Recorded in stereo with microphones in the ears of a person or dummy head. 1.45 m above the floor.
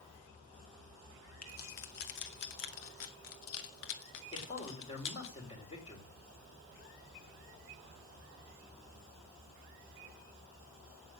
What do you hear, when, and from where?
1.4 s keys jangling: 45° left (ahead or behind), 1.7 m; by 5.3 s 60° left (ahead or behind), 2.5 m
4.3 s a man speaking: 30° left (ahead or behind), 4.5 m